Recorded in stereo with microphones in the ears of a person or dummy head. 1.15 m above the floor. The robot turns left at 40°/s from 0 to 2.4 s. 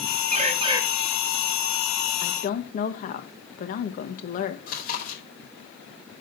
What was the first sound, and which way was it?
A bird, 40° right (ahead or behind).